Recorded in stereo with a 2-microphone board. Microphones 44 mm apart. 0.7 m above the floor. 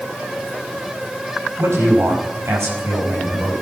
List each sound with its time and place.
1.6 s a man speaking: 70° right (ahead or behind), 5.5 m; by 3.5 s 75° right (ahead or behind), 5 m